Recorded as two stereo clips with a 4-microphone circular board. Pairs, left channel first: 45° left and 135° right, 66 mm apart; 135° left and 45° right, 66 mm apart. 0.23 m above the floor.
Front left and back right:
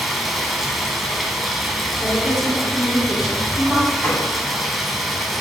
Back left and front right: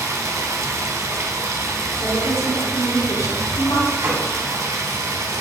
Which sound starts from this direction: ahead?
A gunshot, at 4.0 s.